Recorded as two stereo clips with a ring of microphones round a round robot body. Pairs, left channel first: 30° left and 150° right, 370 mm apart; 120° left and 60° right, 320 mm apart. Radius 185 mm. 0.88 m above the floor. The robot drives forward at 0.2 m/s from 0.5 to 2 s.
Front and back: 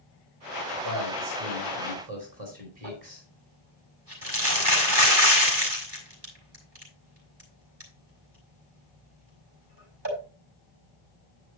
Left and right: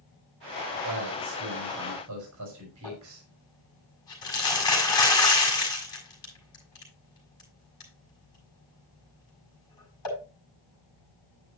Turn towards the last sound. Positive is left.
turn(degrees=160)